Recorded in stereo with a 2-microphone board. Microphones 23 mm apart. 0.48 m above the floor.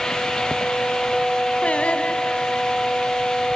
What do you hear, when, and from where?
1.6 s singing: 75° left (ahead or behind), 1.7 m